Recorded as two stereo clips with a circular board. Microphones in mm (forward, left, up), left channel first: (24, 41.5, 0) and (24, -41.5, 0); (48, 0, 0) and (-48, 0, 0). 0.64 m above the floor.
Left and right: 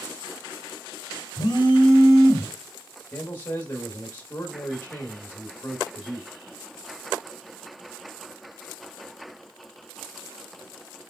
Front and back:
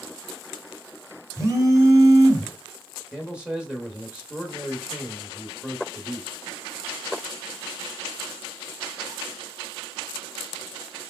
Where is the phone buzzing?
120° left, 1.0 m.